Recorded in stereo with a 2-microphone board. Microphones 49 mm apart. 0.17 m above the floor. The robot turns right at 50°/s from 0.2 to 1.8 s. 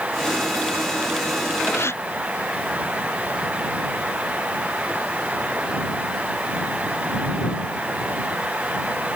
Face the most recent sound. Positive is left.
turn(degrees=60)  # may be behind; listen again after turning